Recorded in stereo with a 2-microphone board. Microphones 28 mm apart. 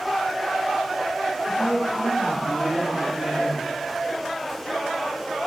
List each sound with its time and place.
1.5 s a woman speaking: 50° right (ahead or behind), 4 m; by 3.6 s 55° right (ahead or behind), 7 m